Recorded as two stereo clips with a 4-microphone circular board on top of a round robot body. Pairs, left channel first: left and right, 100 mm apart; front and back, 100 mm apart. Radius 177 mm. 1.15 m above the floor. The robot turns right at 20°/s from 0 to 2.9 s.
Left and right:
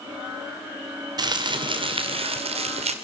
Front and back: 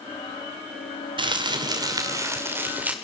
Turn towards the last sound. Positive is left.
turn(degrees=-105)